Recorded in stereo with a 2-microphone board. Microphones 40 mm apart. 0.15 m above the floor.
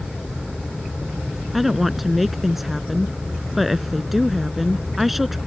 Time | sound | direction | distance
1.5 | a woman speaking | 5° right (ahead or behind) | ?